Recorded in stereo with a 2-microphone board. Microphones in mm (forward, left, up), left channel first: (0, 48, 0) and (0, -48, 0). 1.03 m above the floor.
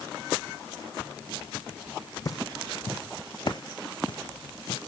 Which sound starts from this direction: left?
Footsteps, at 2.2 s.